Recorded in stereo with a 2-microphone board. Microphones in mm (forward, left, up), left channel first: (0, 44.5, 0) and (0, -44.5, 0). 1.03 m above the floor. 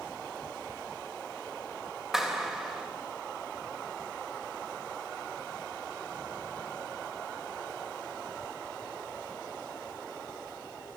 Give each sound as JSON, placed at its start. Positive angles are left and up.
{"t": 2.1, "sound": "a clap", "side_deg": -5, "distance_m": 3.5}